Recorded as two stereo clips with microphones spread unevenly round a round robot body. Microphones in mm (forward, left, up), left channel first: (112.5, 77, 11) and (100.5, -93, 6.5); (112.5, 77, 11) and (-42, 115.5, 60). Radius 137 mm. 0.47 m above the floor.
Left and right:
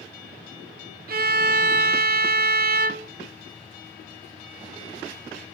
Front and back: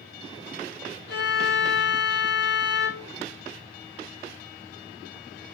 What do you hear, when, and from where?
1.1 s a violin: 70° right, 0.7 m